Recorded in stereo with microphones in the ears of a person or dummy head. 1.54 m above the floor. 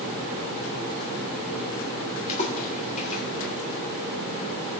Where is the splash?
45° left (ahead or behind), 3.5 m.